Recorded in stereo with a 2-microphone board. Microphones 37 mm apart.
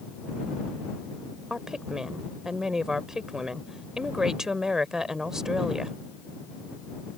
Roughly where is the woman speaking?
Centre.